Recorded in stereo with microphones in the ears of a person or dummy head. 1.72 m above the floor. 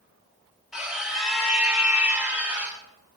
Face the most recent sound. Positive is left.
turn(degrees=-10)  # may be behind; listen again after turning